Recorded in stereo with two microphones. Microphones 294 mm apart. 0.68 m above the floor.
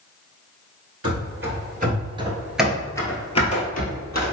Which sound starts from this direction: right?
Running footsteps, at 1.0 s.